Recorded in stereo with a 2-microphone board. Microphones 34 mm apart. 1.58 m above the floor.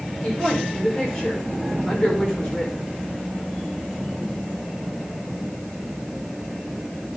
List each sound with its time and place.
0.2 s a woman speaking: 15° left (ahead or behind), 5.5 m